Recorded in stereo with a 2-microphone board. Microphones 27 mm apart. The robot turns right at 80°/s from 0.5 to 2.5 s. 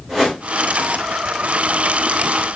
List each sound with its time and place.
0.1 s a whoosh: 20° right (ahead or behind), 6 m